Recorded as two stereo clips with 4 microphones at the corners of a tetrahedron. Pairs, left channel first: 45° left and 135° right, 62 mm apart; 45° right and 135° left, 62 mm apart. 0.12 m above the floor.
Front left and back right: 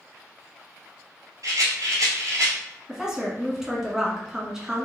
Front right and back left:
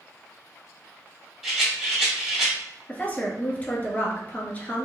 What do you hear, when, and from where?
1.4 s a rattle: 145° right, 2 m
2.9 s a woman speaking: 65° right, 1.2 m